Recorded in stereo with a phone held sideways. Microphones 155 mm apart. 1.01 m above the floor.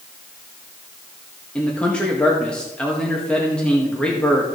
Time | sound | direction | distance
1.6 | a man speaking | 5° left (ahead or behind) | 1.7 m